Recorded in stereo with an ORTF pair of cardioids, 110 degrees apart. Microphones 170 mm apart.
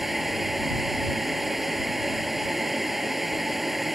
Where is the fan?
Straight ahead.